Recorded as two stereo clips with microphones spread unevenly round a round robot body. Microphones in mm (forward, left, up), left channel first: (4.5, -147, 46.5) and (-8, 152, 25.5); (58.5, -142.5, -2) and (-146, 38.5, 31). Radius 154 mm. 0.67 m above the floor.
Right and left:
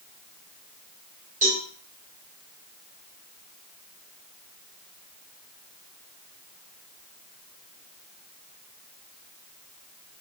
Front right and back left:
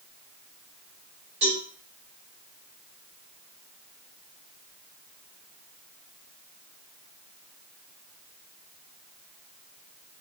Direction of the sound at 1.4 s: 155° left.